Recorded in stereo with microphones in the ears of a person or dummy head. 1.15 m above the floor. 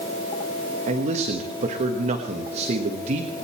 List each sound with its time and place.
0.9 s a man speaking: 40° right (ahead or behind), 1.3 m